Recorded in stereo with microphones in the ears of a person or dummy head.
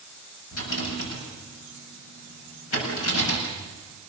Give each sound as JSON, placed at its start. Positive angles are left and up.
{"t": 0.5, "sound": "a rattle", "side_deg": 85, "distance_m": 7.5}